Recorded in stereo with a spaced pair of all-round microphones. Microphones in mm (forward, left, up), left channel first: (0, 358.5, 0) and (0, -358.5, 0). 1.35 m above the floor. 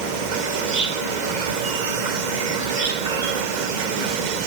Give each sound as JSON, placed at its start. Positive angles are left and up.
{"t": 0.0, "sound": "an insect", "side_deg": -70}